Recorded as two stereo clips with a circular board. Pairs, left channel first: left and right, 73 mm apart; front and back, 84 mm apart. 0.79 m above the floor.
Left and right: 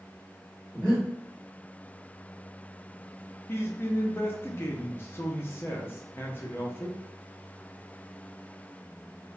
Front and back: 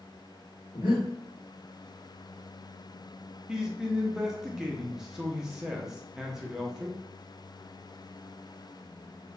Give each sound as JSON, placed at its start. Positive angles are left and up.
{"t": 0.7, "sound": "breathing", "azimuth_deg": 10, "distance_m": 1.2}
{"t": 3.5, "sound": "a man speaking", "azimuth_deg": 100, "distance_m": 0.5}